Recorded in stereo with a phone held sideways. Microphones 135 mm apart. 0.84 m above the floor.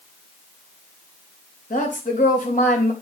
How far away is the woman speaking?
About 3.5 m.